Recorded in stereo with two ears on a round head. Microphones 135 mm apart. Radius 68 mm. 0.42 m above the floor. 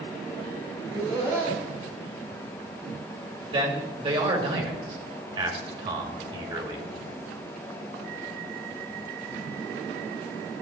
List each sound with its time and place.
0.8 s laughter: 25° right (ahead or behind), 4 m
3.5 s a man speaking: 35° right (ahead or behind), 1.8 m